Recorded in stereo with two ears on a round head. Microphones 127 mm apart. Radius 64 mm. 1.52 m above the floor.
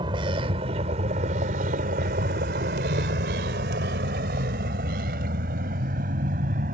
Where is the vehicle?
35° right (ahead or behind); by 6.8 s 60° right (ahead or behind).